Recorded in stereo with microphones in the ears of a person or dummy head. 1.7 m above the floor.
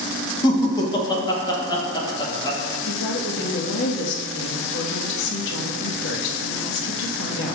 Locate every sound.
0.4 s laughter: 30° left (ahead or behind), 2.5 m
2.9 s a woman speaking: 70° left (ahead or behind), 2.5 m